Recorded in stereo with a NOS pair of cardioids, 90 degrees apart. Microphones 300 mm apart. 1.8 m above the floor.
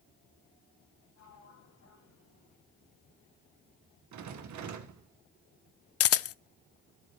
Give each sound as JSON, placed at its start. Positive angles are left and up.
{"t": 1.1, "sound": "a sliding door", "azimuth_deg": 60, "distance_m": 7.0}
{"t": 4.1, "sound": "a rattle", "azimuth_deg": -70, "distance_m": 2.0}
{"t": 6.0, "sound": "a camera shutter", "azimuth_deg": 50, "distance_m": 0.6}